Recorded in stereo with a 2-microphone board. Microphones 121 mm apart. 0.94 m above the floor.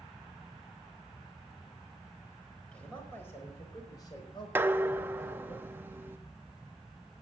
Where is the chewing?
I don't hear chewing.